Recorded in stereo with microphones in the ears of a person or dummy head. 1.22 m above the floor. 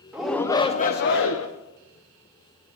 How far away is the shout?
About 0.7 m.